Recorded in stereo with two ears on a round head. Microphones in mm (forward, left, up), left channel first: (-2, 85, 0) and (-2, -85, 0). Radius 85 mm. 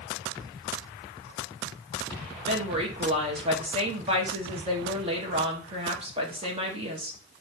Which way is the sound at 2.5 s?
30° right (ahead or behind).